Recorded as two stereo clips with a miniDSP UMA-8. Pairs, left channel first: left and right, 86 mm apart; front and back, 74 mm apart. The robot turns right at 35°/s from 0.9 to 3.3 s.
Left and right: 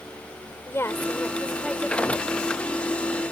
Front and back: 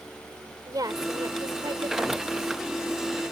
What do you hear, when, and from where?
0.7 s a woman speaking: 150° left; by 2.3 s 160° right